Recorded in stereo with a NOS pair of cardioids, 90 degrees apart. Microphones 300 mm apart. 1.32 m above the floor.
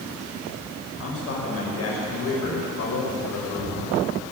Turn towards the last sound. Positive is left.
turn(degrees=60)